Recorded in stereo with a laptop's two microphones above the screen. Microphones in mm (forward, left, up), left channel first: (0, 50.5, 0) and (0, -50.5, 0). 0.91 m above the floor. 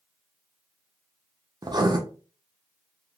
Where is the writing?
45° right (ahead or behind), 0.6 m.